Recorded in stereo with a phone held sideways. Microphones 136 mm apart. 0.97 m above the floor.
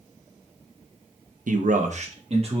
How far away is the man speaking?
About 0.6 m.